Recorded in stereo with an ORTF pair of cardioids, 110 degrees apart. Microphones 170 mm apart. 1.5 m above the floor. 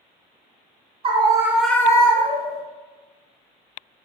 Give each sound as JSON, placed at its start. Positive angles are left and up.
{"t": 1.0, "sound": "a scream", "azimuth_deg": -35, "distance_m": 0.6}